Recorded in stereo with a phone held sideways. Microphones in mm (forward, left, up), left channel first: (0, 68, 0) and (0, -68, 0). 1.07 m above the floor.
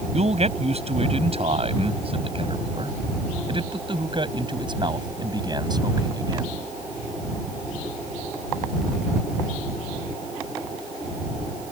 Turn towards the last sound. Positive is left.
turn(degrees=-30)  # may be behind; listen again after turning